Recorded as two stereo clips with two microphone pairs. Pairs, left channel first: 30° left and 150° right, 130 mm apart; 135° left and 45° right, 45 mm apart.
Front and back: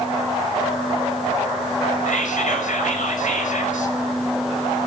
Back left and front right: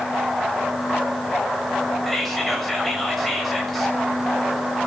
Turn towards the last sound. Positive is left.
turn(degrees=45)